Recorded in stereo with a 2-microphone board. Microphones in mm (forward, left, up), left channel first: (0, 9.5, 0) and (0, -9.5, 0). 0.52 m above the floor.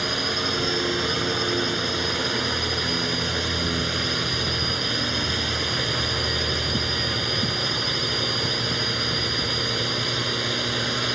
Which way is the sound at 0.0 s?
5° right (ahead or behind).